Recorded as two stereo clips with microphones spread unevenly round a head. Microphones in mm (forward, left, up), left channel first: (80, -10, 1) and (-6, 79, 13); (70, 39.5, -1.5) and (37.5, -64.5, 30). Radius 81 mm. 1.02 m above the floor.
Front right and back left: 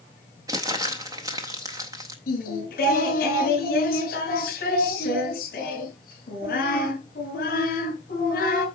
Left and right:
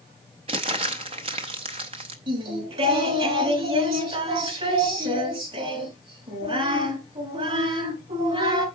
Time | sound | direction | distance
0.5 | crumpling | 160° right | 0.5 m
2.3 | singing | 80° right | 3 m